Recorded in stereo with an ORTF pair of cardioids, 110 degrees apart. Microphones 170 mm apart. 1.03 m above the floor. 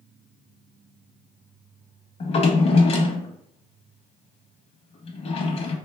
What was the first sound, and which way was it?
A drawer, 40° left.